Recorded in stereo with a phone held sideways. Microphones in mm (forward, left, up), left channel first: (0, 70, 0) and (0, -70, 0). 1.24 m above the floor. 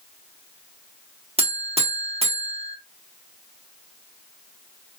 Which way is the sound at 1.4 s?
45° right (ahead or behind).